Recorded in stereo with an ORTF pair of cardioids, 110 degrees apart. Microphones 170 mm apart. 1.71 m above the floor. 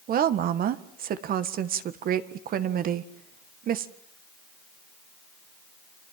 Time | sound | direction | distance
0.1 | a woman speaking | 60° right | 1.7 m